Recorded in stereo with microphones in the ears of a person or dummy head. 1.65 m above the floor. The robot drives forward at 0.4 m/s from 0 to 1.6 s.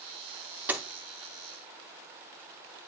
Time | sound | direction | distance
0.7 | a door slam | 10° right (ahead or behind) | 0.6 m